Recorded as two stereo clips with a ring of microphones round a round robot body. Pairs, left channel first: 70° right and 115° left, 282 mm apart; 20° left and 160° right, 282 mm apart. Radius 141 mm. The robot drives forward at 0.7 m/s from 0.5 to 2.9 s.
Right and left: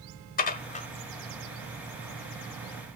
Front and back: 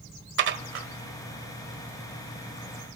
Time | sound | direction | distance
0.4 | dishes clattering | 120° right | 1.3 m